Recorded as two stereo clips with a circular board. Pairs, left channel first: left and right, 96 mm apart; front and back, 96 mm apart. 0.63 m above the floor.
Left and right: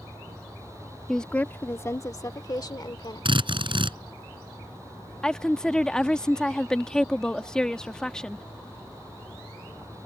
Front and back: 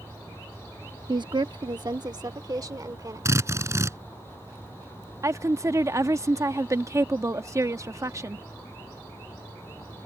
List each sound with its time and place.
1.1 s a woman speaking: 175° left; by 3.3 s 130° left
3.2 s a drill: 120° right
5.2 s a woman speaking: 165° left